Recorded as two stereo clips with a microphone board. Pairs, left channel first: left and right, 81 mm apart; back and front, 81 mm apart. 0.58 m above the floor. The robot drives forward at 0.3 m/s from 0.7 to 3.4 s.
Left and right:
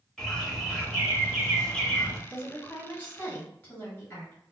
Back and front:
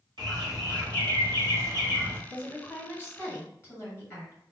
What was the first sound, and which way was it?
A bird, 5° left.